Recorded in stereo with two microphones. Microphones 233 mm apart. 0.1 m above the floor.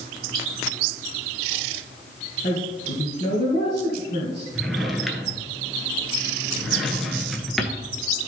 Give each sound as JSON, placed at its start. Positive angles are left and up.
{"t": 2.4, "sound": "a woman speaking", "side_deg": 40, "distance_m": 2.0}
{"t": 4.5, "sound": "a drawer", "side_deg": 0, "distance_m": 1.0}